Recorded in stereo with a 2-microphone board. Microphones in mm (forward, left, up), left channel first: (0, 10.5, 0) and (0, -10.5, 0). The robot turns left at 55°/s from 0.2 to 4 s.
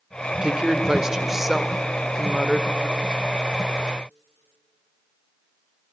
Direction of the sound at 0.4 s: 110° right.